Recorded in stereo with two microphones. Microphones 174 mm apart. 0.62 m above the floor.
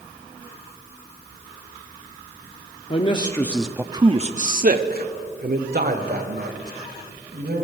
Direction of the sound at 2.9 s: 35° left (ahead or behind).